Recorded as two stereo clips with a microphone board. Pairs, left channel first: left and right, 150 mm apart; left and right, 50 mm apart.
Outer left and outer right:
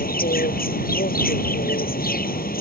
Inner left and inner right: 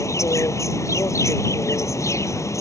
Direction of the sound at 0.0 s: 75° left (ahead or behind).